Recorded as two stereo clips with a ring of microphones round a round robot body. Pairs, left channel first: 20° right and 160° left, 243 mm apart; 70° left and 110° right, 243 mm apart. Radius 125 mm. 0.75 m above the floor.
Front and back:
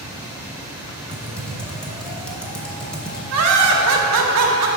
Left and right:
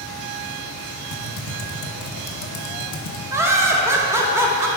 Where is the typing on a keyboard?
65° left, 0.9 m.